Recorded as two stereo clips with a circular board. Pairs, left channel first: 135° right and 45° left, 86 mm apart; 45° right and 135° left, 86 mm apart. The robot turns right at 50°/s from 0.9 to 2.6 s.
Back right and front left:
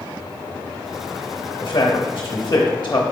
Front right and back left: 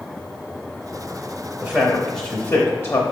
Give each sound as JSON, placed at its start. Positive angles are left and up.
{"t": 1.6, "sound": "a man speaking", "azimuth_deg": -145, "distance_m": 0.7}